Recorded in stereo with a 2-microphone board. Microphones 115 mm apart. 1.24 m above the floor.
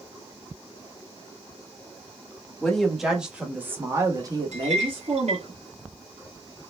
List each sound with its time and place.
2.6 s a woman speaking: 5° left (ahead or behind), 1.7 m; by 5.5 s 60° right (ahead or behind), 1.6 m
4.5 s a clink: 70° right (ahead or behind), 1.7 m